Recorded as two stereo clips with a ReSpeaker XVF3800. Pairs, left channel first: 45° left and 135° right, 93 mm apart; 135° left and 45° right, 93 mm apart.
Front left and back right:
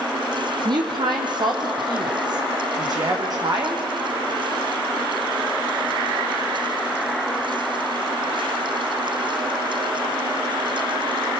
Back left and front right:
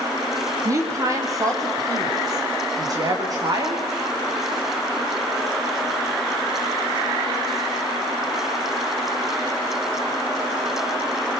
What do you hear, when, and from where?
0.7 s a woman speaking: 100° right, 5 m; by 3.8 s 90° right, 8 m